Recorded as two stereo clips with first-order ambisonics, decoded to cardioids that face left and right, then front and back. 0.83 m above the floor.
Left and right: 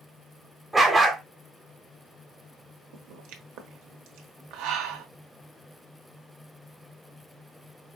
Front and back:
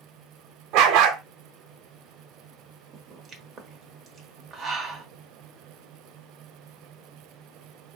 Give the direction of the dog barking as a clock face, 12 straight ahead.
6 o'clock.